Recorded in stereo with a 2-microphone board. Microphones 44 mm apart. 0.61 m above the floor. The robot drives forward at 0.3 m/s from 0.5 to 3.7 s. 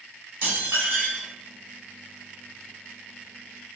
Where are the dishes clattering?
70° right (ahead or behind), 1.7 m; by 1.3 s 75° right (ahead or behind), 1.6 m.